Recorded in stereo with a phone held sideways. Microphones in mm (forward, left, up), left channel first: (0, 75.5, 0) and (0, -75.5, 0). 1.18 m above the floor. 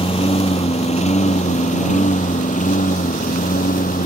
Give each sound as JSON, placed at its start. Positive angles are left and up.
{"t": 0.0, "sound": "a lawn mower", "side_deg": 40}